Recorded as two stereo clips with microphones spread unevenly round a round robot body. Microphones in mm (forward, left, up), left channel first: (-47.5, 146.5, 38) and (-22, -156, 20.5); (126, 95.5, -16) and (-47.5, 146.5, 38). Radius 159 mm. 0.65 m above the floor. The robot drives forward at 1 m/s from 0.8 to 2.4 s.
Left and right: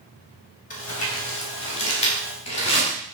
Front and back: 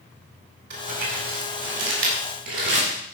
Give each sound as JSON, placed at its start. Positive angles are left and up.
{"t": 0.7, "sound": "crumpling", "azimuth_deg": 160, "distance_m": 4.5}